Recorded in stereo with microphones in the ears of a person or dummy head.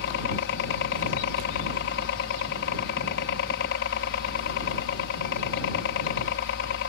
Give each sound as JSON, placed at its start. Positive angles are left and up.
{"t": 0.0, "sound": "a helicopter", "side_deg": 65}